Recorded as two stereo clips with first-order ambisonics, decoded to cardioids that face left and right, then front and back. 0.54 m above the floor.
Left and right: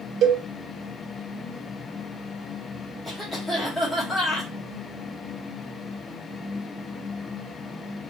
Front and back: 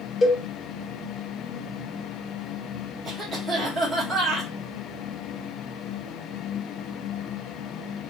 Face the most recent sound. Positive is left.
turn(degrees=175)